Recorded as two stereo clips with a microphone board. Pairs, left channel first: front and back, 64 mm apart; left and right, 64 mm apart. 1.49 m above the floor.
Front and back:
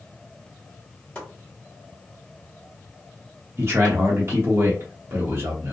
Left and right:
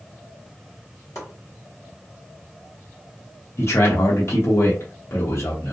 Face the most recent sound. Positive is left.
turn(degrees=135)